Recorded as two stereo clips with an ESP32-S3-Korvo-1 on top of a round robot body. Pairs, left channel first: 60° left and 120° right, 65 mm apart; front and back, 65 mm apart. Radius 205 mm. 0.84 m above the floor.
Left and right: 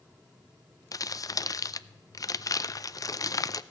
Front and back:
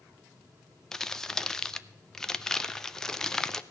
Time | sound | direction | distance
0.9 | crumpling | 80° left | 0.7 m